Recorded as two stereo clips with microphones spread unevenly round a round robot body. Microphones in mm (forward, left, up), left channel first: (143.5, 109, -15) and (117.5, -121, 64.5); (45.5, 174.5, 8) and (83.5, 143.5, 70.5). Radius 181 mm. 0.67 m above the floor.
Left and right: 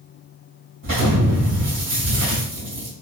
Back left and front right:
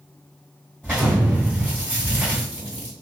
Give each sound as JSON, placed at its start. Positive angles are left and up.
{"t": 0.8, "sound": "an explosion", "azimuth_deg": -120, "distance_m": 1.8}